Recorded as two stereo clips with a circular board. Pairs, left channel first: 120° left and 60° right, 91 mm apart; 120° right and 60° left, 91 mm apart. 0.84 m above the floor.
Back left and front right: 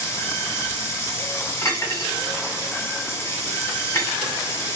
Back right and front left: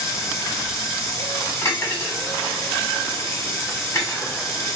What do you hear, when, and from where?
0.0 s running water: straight behind, 2 m
1.6 s cutlery clinking: straight behind, 1.8 m